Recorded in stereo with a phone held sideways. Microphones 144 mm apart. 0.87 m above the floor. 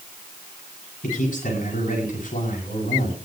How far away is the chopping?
No chopping in this recording.